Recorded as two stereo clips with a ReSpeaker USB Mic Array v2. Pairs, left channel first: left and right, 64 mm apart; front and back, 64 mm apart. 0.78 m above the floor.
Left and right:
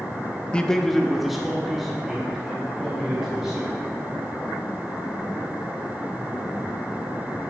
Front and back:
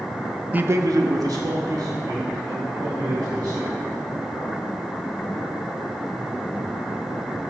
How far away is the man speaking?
About 0.5 m.